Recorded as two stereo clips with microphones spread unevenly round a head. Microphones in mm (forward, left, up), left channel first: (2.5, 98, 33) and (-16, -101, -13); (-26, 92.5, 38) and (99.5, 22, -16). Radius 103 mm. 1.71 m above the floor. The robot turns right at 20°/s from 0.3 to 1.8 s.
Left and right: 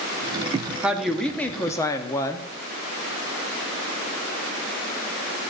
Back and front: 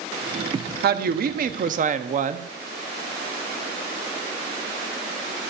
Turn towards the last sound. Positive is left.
turn(degrees=10)